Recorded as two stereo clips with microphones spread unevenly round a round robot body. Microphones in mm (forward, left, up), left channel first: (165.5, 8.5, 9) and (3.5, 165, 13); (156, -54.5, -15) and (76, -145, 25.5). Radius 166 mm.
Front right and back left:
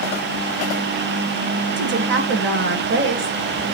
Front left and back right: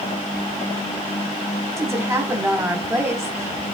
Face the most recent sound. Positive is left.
turn(degrees=130)